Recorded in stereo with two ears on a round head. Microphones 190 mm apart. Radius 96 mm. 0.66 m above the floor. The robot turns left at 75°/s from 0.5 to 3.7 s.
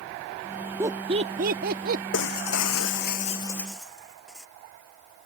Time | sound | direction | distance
0.8 | laughter | 10° right (ahead or behind) | ?
2.1 | breaking glass | 120° left | ?